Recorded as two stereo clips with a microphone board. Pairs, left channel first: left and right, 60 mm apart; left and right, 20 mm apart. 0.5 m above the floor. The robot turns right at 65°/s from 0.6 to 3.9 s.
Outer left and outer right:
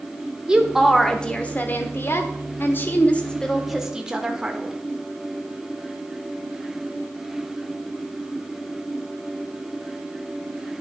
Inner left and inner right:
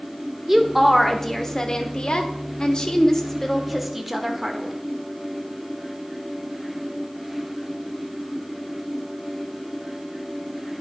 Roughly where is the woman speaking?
Ahead.